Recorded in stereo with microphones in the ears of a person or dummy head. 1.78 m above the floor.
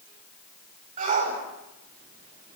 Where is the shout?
40° right (ahead or behind), 7 m.